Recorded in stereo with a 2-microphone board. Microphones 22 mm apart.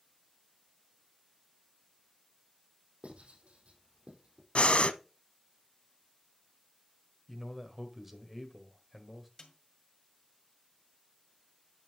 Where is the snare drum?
40° left (ahead or behind), 2 m.